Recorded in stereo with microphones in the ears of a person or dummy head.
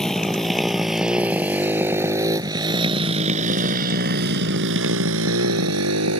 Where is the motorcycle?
Centre (ahead or behind); by 6.2 s 80° right.